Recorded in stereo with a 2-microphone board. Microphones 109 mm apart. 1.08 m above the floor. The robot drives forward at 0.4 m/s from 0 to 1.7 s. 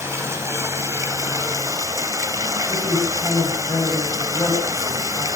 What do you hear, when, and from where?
0.0 s running water: 25° right (ahead or behind), 3 m; by 5.4 s 30° right (ahead or behind), 2.5 m
2.7 s a woman speaking: 30° left (ahead or behind), 8 m